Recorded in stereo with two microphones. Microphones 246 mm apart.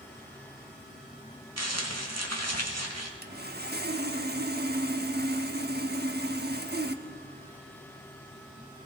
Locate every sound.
1.6 s crumpling: 80° right, 2.0 m
3.2 s sawing: 40° right (ahead or behind), 1.0 m